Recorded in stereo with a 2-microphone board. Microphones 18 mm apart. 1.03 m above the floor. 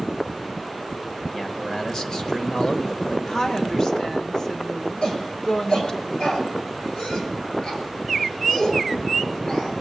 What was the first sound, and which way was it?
A man speaking, 40° left (ahead or behind).